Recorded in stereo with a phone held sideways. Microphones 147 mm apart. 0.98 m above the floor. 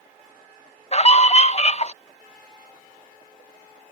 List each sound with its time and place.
0.9 s a scream: 45° left (ahead or behind)